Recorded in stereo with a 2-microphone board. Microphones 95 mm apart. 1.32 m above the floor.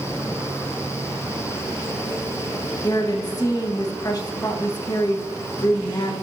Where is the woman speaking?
40° left (ahead or behind), 1.5 m.